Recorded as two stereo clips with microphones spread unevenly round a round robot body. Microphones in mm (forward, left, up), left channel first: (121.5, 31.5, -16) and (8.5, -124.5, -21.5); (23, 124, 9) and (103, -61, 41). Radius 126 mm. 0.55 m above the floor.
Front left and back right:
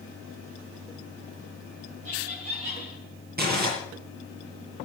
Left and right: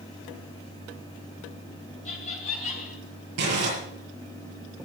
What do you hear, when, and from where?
2.0 s laughter: 175° left, 3 m
3.4 s crumpling: 90° right, 7.5 m